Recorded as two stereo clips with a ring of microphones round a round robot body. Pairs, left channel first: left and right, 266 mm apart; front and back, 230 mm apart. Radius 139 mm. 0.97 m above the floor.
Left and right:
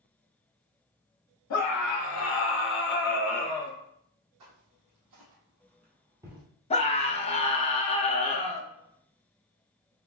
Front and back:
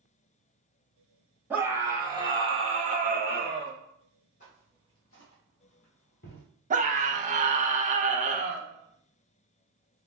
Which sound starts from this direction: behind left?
A scream, at 6.7 s.